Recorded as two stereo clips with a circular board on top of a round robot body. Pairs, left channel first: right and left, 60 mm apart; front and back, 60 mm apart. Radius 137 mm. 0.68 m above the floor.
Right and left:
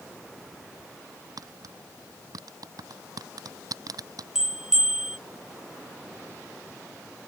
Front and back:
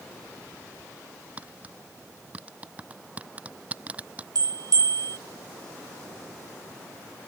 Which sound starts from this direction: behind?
A bell, at 4.3 s.